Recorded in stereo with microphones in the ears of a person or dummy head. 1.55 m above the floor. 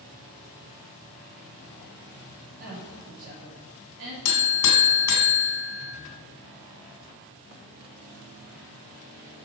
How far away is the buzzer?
About 2.5 m.